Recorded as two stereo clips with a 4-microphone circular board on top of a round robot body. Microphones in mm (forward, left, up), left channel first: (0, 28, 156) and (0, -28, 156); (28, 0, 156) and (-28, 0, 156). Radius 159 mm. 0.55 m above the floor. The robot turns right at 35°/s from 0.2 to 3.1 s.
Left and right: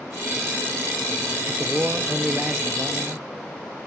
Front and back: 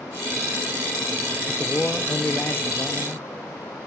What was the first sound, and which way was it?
A man speaking, 60° right.